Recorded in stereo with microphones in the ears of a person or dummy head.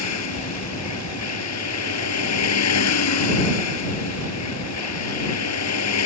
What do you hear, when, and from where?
0.0 s a vehicle: 80° left